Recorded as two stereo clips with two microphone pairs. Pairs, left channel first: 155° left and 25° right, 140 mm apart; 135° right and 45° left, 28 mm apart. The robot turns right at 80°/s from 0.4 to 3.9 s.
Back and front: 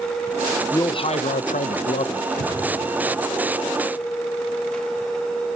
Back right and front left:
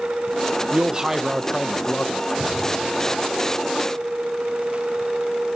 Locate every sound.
0.7 s a man speaking: 85° left, 0.6 m; by 2.2 s 155° right, 0.6 m
2.3 s breathing: 140° left, 5.5 m; by 2.6 s 170° left, 5.5 m